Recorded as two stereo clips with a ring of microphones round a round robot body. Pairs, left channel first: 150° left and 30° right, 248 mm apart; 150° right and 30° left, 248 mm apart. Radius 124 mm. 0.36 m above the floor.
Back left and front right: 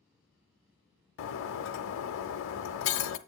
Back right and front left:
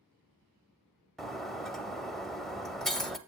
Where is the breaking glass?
120° left, 0.6 m.